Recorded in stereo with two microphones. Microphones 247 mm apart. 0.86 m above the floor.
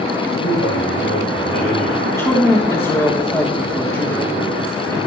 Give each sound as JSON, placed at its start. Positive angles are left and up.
{"t": 0.4, "sound": "a man speaking", "side_deg": 75, "distance_m": 5.0}
{"t": 2.0, "sound": "a woman speaking", "side_deg": 10, "distance_m": 1.4}